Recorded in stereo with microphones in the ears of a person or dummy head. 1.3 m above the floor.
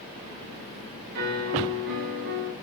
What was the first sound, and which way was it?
A piano, 50° right (ahead or behind).